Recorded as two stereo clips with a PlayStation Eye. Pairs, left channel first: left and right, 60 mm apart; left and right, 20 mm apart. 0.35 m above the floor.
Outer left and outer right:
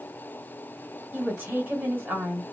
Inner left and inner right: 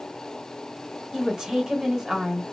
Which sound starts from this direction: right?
A woman speaking, at 1.1 s.